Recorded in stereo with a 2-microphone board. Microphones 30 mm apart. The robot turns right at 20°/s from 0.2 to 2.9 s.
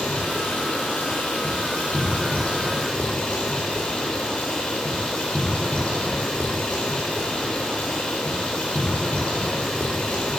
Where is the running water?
75° left, 4 m; by 10.4 s 130° left, 4 m.